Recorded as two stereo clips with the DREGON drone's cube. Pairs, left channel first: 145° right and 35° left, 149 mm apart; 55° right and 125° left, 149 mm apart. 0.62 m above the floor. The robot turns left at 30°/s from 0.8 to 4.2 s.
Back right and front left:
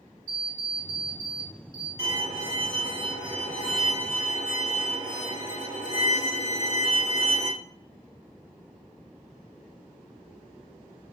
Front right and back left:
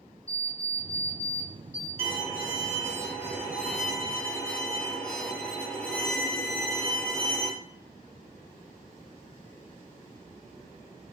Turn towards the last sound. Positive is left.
turn(degrees=30)